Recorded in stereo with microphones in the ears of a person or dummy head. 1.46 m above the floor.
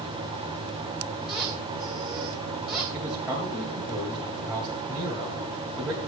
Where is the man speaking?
5° right (ahead or behind), 2.5 m.